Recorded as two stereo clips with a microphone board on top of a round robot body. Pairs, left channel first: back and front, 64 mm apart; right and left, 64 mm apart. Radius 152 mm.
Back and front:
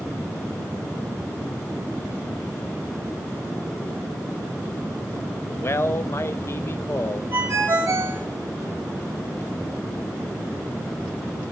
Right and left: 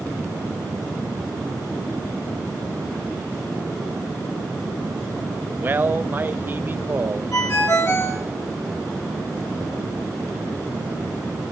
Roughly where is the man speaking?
Behind left.